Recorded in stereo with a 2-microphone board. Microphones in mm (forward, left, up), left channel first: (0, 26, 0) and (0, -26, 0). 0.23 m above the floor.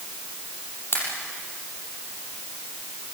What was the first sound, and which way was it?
A pop, 50° left (ahead or behind).